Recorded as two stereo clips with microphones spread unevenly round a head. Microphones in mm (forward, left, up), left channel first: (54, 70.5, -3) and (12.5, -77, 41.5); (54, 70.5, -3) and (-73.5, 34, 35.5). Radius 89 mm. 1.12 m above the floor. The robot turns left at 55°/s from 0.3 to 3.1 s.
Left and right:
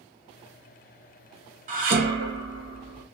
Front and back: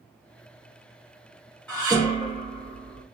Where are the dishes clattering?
70° right, 0.8 m; by 3.0 s 145° right, 0.8 m.